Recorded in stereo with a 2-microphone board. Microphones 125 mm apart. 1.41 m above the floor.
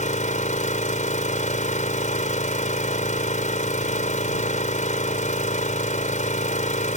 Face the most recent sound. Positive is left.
turn(degrees=80)